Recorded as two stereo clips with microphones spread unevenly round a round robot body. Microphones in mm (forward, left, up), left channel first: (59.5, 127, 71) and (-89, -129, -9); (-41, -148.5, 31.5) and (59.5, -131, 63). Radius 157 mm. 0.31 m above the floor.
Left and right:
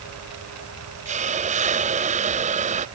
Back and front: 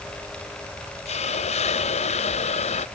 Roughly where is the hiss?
Behind.